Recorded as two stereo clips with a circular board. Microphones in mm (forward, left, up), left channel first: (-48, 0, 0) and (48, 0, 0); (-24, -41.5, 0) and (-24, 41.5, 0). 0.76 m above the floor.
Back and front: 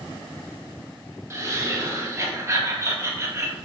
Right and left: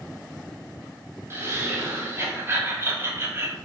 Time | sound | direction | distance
1.3 | laughter | 45° left | 0.5 m